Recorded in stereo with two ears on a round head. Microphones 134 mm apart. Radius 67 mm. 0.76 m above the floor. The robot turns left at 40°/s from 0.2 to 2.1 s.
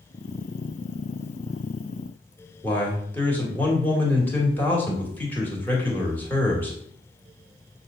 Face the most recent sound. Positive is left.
turn(degrees=15)  # may be behind; listen again after turning